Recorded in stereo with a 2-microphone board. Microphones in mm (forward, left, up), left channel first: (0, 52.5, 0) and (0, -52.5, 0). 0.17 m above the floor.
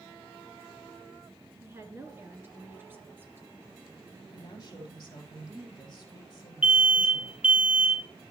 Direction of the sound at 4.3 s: 40° left (ahead or behind).